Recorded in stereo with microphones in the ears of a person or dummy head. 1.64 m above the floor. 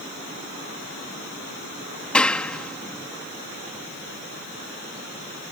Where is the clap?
Centre (ahead or behind).